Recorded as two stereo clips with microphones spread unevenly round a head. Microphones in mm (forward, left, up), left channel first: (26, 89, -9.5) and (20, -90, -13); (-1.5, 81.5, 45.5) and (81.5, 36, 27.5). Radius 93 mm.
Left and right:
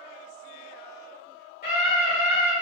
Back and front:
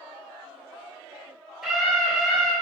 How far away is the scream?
About 2 m.